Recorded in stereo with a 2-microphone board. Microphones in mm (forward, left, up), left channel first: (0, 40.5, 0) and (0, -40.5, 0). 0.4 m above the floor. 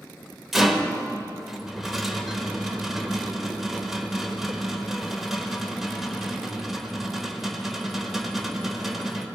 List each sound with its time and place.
0.5 s a rattle: 5° right (ahead or behind), 1.1 m